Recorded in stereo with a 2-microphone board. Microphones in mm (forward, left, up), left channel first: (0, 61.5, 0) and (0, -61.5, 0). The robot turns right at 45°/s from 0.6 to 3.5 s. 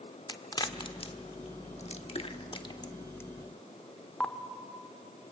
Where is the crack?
35° left (ahead or behind), 1.1 m; by 4.3 s 10° left (ahead or behind), 1.1 m.